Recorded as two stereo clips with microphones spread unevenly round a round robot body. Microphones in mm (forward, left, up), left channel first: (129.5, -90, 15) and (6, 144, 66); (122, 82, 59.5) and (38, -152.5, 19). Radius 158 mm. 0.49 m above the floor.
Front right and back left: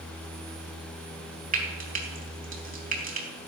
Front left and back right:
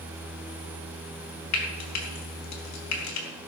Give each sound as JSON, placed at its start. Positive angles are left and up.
{"t": 1.5, "sound": "frying", "azimuth_deg": 55, "distance_m": 4.0}